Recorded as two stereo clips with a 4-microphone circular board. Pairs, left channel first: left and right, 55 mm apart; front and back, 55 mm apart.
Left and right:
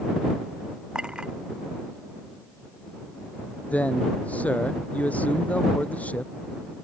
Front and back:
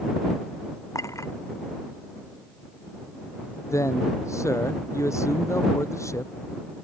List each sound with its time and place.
0.9 s a clink: 15° right
3.7 s a man speaking: 25° left